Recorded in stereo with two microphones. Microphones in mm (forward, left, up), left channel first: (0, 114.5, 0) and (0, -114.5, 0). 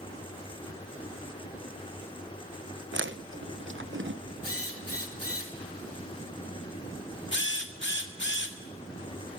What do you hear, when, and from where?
2.9 s chewing: 55° right (ahead or behind), 0.9 m
4.4 s a drill: 80° left, 3 m
7.3 s a drill: 55° left (ahead or behind), 1.8 m